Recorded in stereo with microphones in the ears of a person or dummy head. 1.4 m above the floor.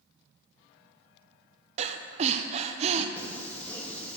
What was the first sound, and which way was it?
Breathing, 40° right (ahead or behind).